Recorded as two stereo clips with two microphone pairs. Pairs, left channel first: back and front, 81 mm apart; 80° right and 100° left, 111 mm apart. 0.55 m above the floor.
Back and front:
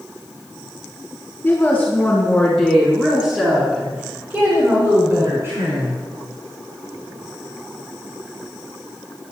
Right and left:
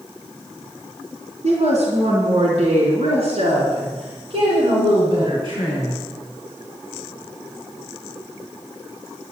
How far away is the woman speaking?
About 4 m.